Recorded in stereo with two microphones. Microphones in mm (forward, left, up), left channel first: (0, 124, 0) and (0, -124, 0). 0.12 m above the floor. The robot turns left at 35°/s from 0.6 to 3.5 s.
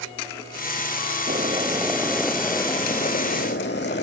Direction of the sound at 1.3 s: 145° right.